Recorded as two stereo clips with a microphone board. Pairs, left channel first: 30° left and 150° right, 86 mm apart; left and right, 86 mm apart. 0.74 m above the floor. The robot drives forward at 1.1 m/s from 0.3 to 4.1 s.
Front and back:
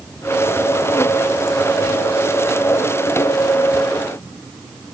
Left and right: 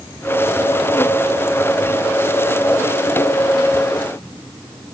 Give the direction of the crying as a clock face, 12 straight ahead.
No crying in this recording.